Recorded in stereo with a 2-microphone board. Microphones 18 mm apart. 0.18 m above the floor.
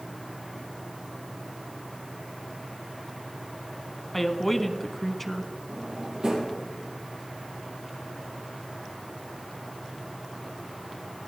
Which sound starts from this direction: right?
A drawer, at 5.7 s.